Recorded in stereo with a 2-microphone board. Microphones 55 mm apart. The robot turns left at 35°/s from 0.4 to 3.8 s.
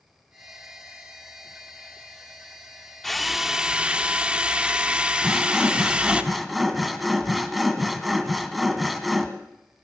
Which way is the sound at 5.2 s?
Centre (ahead or behind).